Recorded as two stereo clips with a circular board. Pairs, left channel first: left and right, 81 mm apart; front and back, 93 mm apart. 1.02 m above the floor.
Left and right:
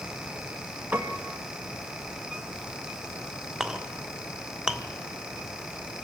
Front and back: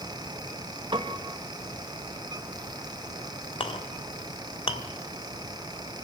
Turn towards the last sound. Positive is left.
turn(degrees=-10)